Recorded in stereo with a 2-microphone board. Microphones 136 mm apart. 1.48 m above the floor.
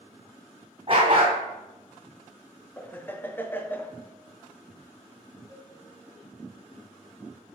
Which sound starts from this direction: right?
A dog barking, at 0.9 s.